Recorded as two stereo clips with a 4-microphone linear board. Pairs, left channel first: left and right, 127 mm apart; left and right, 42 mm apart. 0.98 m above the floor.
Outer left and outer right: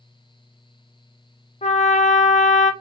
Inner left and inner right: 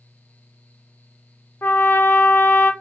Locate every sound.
1.6 s a trumpet: 65° left (ahead or behind), 0.5 m